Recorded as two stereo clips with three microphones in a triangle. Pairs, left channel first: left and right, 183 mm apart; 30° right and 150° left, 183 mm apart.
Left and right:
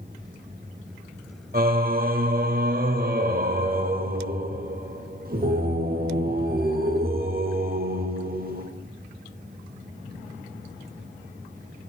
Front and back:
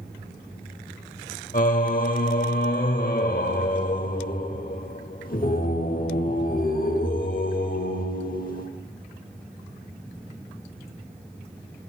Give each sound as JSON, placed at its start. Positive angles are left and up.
{"t": 1.5, "sound": "singing", "azimuth_deg": -65, "distance_m": 0.8}